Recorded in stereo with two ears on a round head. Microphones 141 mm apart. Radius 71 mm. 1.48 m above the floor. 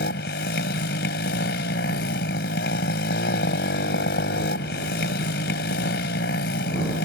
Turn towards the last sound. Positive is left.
turn(degrees=80)